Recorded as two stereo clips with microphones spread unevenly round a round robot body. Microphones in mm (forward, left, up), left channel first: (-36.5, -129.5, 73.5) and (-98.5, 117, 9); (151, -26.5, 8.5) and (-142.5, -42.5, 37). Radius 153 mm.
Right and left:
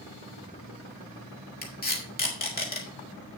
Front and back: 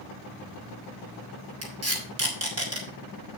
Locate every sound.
1.6 s tape being pulled: 135° right, 4 m